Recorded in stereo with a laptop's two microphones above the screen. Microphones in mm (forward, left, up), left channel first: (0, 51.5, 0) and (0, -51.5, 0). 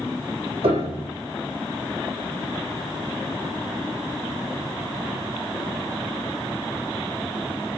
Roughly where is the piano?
Right.